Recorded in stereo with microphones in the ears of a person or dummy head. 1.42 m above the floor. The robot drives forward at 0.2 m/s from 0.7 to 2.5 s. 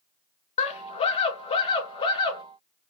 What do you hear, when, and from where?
0.6 s a scream: 25° left (ahead or behind), 0.6 m; by 2.4 s 15° left (ahead or behind), 0.8 m